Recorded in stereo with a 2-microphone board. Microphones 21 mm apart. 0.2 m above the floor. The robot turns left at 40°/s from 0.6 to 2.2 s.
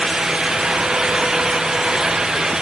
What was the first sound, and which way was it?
Only background noise.